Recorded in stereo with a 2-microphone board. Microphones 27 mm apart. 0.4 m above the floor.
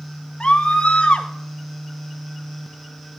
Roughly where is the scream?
Left.